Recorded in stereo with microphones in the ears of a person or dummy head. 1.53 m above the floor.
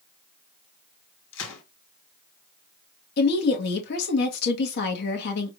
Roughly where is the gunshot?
Left.